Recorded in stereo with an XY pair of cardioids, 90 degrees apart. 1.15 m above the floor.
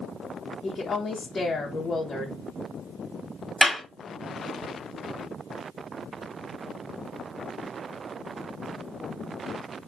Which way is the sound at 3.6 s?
Straight ahead.